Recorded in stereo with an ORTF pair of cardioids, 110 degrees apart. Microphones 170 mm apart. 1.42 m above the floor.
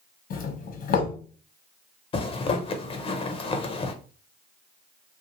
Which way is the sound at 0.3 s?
60° left.